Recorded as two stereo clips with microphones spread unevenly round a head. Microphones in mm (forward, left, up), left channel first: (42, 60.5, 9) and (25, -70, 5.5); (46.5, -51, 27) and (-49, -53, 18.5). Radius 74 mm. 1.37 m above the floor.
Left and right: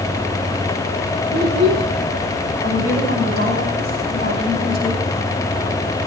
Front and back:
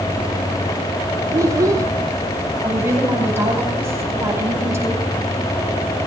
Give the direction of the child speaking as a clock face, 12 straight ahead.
4 o'clock.